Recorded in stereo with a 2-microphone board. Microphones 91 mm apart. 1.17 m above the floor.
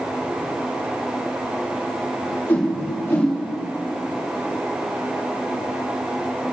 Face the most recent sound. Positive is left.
turn(degrees=25)  # may be behind; listen again after turning